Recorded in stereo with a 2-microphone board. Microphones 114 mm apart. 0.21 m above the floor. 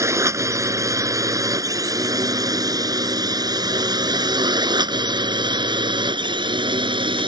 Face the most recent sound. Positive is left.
turn(degrees=-45)  # may be behind; listen again after turning